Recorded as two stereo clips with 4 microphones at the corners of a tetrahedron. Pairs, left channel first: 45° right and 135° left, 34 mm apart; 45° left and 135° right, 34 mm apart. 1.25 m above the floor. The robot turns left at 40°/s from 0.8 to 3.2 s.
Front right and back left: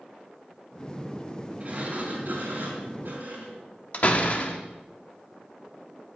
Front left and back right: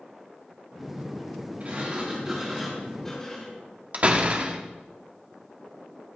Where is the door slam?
90° right, 1.4 m.